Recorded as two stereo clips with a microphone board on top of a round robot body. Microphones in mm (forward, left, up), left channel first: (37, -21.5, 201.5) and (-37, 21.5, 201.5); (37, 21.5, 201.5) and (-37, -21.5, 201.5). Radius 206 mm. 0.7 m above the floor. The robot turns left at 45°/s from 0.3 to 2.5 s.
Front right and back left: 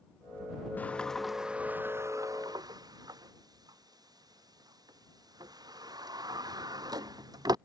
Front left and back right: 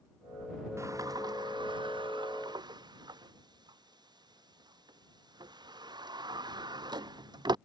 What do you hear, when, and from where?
0.8 s a sliding door: 100° right; by 7.5 s 175° right